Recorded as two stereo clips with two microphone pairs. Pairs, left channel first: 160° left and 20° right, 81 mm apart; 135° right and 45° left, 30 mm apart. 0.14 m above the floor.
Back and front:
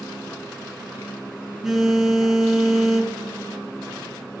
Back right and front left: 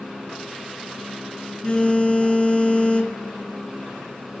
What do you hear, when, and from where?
1.6 s a phone buzzing: 105° right, 0.8 m